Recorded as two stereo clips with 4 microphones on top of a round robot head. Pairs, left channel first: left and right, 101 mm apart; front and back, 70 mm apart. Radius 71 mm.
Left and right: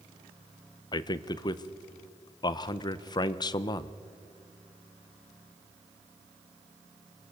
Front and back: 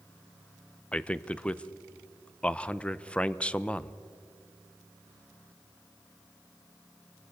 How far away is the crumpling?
No crumpling in this recording.